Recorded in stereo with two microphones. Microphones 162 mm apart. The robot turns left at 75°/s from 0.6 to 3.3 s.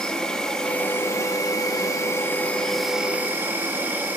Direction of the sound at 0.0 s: 5° left (ahead or behind).